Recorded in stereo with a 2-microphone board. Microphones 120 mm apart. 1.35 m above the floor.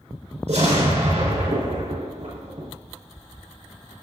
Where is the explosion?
80° right, 4.5 m.